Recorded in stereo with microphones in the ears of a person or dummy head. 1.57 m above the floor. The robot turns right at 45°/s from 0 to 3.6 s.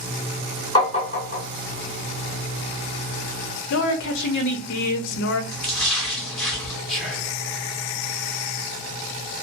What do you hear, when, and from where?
0.8 s tapping: 25° left (ahead or behind), 1.4 m; by 1.4 s 45° left (ahead or behind), 1.4 m
3.7 s a woman speaking: 65° left (ahead or behind), 0.6 m
5.5 s a splash: 5° left (ahead or behind), 1.1 m
6.9 s whispering: 5° left (ahead or behind), 0.8 m